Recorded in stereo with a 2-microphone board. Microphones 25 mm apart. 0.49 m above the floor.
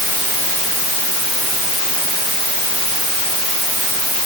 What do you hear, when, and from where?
Only background noise.